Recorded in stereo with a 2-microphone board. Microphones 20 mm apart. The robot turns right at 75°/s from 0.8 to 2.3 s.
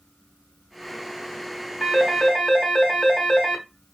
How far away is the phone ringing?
About 1.0 m.